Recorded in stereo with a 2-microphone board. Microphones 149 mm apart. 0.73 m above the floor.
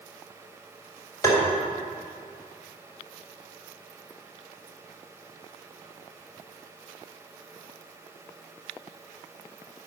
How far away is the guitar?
No guitar in this recording.